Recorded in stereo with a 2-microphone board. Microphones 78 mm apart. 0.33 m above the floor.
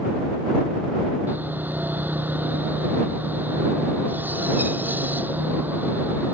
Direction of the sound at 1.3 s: 25° right (ahead or behind).